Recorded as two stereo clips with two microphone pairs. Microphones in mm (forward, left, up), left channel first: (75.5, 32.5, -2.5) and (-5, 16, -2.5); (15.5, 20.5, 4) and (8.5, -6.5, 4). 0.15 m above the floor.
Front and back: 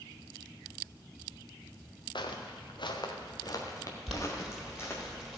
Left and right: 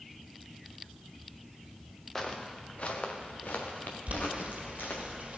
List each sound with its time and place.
2.1 s footsteps: straight ahead, 1.4 m; by 5.0 s 70° left, 3.5 m
4.1 s boiling: 80° right, 2 m